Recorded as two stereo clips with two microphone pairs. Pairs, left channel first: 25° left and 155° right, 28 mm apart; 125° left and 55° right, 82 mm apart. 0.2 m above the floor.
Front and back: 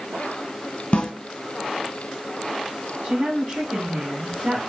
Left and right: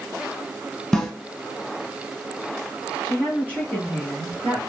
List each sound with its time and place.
0.9 s a snare drum: 40° left, 1.1 m
3.0 s a woman speaking: straight behind, 1.6 m